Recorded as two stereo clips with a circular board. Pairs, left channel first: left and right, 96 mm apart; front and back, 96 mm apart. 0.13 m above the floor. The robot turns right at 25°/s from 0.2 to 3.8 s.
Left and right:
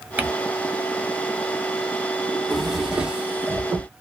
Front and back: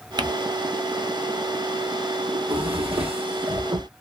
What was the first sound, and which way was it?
Crumpling, 160° right.